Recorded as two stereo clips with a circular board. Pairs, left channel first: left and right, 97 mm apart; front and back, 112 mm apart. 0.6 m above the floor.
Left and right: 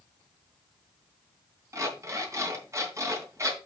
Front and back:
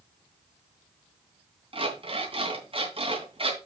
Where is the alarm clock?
150° right, 3 m.